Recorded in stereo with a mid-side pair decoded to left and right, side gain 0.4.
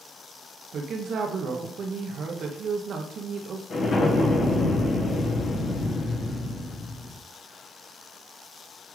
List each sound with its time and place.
0.7 s a woman speaking: 65° right, 1.0 m
3.7 s an explosion: 60° left, 1.5 m